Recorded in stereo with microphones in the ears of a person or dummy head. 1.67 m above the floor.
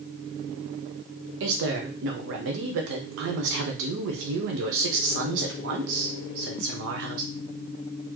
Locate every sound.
1.4 s a woman speaking: 65° right (ahead or behind), 0.9 m